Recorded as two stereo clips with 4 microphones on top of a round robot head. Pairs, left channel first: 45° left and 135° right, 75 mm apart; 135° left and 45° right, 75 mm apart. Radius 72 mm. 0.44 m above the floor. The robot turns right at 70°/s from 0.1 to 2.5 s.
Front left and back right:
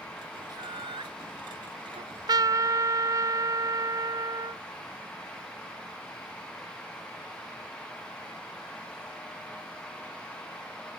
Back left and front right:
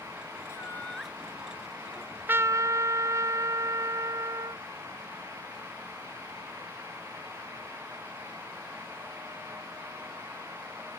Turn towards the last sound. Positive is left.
turn(degrees=-95)